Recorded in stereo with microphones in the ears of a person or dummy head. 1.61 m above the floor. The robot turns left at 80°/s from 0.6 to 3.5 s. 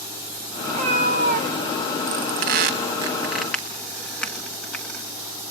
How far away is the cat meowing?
About 1.1 m.